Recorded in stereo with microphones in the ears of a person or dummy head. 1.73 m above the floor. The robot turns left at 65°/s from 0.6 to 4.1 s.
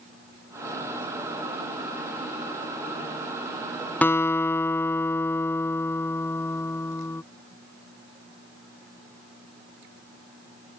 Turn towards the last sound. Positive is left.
turn(degrees=15)  # may be behind; listen again after turning